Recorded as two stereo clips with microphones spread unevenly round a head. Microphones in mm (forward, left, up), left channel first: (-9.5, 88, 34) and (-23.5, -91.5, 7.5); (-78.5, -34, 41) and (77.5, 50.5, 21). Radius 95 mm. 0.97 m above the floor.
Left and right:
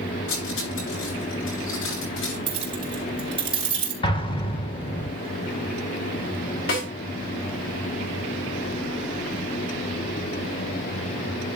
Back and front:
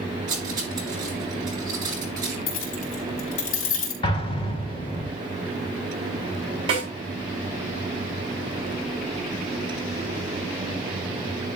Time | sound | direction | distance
0.3 | cutlery clinking | 100° left | 9 m
2.5 | keys jangling | 160° right | 4.5 m
4.0 | an explosion | 145° left | 1.8 m
6.7 | a snare drum | 90° left | 8 m